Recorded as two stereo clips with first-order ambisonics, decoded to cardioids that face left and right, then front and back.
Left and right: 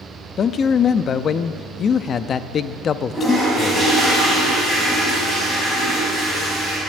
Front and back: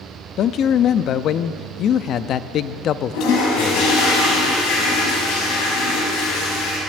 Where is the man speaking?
40° left, 0.6 m.